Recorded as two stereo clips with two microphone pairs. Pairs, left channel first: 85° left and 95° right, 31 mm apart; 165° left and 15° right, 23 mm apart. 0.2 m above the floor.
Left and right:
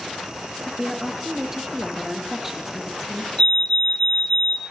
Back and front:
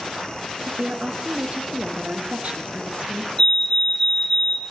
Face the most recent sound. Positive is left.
turn(degrees=115)